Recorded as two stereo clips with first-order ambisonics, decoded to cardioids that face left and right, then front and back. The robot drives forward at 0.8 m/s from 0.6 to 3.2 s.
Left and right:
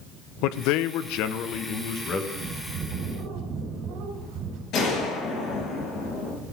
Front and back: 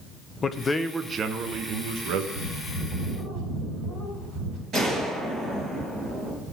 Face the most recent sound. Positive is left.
turn(degrees=125)